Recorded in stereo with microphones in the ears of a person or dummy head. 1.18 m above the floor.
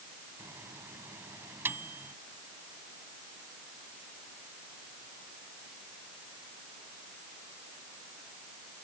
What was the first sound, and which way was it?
A microwave, 10° right (ahead or behind).